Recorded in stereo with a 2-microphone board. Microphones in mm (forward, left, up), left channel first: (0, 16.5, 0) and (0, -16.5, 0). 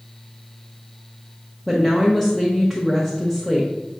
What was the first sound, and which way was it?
A woman speaking, 5° left (ahead or behind).